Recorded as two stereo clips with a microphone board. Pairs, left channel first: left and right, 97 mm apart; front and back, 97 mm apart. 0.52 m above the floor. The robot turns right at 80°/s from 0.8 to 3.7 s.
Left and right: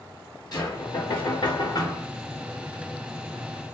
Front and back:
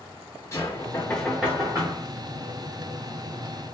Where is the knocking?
55° left, 0.9 m; by 2.1 s 155° left, 0.9 m.